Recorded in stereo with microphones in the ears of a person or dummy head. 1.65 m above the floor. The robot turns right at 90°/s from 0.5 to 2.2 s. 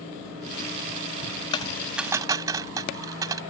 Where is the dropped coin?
25° left (ahead or behind); by 3.4 s 15° right (ahead or behind).